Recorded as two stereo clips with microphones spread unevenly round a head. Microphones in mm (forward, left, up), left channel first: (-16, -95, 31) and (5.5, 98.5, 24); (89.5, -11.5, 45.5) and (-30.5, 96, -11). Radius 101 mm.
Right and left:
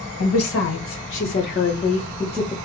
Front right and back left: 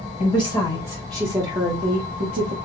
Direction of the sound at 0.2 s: 105° right.